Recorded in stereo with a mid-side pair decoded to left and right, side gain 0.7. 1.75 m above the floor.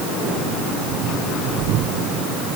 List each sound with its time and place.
Only background noise.